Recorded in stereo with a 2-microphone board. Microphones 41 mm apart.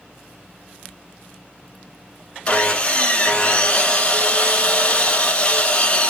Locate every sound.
2.5 s sawing: 30° left (ahead or behind), 0.7 m